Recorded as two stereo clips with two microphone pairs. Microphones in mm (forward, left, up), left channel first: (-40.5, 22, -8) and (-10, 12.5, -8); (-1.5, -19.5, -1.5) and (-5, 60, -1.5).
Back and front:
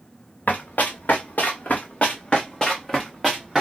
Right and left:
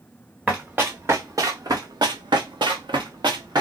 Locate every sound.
0.5 s running footsteps: 160° left, 1.3 m; by 3.6 s 65° left, 1.3 m